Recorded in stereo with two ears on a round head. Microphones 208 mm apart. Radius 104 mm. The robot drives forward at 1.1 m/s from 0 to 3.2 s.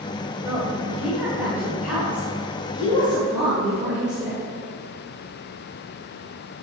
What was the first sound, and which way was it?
A woman speaking, 10° right (ahead or behind).